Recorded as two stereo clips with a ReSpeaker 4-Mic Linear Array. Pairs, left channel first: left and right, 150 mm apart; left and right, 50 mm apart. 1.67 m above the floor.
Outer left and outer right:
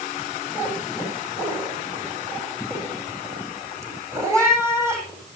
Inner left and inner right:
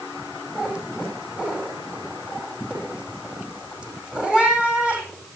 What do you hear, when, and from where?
0.6 s a cat meowing: 20° right (ahead or behind), 9 m